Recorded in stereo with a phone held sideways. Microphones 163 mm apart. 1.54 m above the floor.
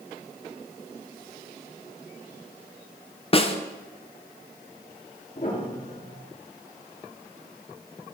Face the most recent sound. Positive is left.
turn(degrees=60)  # may be behind; listen again after turning